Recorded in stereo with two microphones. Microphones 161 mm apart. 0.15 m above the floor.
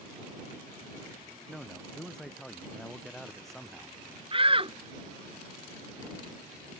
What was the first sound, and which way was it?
A man speaking, 5° left (ahead or behind).